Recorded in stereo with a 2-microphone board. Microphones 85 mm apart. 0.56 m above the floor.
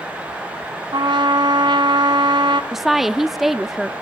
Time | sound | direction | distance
0.9 | a trumpet | 65° right (ahead or behind) | 1.1 m
2.7 | a woman speaking | 5° right (ahead or behind) | 0.7 m